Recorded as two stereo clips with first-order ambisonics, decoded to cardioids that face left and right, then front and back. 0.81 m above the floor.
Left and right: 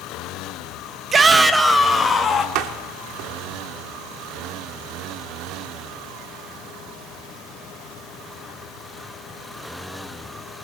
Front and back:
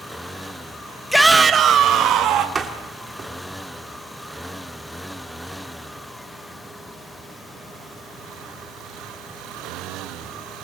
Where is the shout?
85° right, 0.9 m; by 2.5 s 160° left, 1.5 m.